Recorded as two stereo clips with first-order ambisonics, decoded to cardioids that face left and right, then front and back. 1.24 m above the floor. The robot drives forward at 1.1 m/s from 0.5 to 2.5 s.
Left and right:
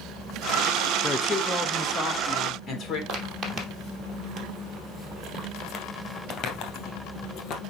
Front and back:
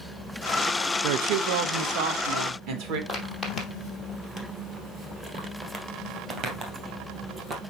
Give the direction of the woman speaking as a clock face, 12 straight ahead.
6 o'clock.